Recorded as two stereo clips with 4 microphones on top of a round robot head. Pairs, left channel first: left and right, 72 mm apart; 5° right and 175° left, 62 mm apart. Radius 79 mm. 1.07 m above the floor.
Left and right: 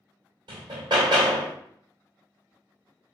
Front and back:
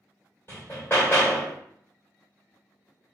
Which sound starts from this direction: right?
Hammering, at 0.5 s.